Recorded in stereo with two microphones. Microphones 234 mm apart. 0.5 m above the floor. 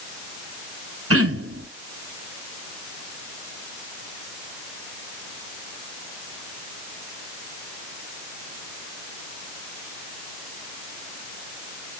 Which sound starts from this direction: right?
Throat clearing, at 1.1 s.